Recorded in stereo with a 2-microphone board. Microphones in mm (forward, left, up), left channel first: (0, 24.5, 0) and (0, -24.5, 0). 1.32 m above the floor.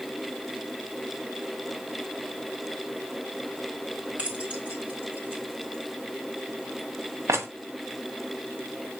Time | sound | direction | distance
4.2 | keys jangling | 25° right (ahead or behind) | 4 m